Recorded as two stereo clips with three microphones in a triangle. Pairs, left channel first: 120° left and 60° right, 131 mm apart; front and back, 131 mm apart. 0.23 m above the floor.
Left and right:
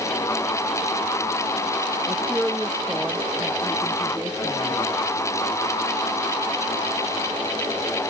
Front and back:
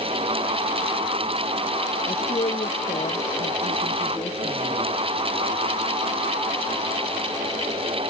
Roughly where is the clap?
I don't hear a clap.